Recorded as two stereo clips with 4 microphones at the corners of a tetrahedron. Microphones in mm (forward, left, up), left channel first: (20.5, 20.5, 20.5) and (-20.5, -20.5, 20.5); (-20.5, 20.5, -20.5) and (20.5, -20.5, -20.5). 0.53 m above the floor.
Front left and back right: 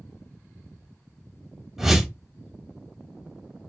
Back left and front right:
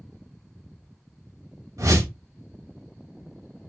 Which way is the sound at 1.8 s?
55° right.